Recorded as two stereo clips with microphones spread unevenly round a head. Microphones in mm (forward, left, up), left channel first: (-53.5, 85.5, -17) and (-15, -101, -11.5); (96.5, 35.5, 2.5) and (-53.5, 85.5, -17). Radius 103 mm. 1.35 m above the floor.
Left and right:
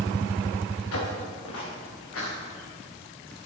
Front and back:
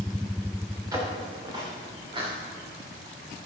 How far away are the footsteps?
About 5.5 m.